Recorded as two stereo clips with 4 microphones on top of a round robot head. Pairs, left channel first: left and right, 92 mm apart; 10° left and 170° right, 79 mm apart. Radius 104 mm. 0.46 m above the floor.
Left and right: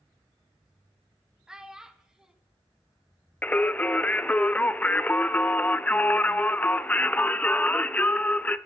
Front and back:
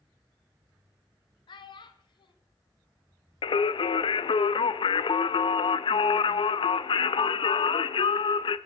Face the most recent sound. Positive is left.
turn(degrees=15)